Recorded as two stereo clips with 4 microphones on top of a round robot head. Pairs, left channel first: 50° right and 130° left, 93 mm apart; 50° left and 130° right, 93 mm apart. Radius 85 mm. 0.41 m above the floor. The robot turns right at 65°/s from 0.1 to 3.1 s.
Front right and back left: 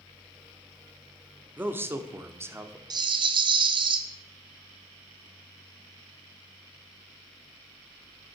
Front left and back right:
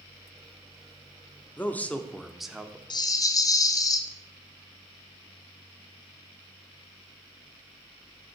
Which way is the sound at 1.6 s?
85° left.